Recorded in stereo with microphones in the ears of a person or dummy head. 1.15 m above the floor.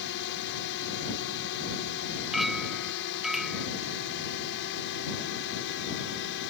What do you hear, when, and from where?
0.0 s a drone: 70° left (ahead or behind)
2.3 s a clink: 5° right (ahead or behind)